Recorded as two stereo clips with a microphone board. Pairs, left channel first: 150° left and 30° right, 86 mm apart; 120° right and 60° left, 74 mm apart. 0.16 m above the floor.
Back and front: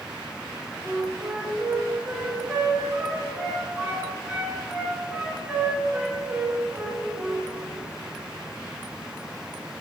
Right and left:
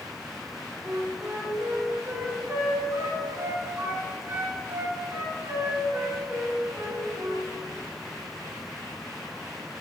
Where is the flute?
35° left, 1.9 m.